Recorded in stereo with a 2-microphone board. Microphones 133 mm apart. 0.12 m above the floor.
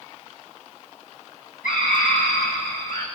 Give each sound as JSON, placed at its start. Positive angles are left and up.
{"t": 1.6, "sound": "a scream", "side_deg": 80, "distance_m": 6.0}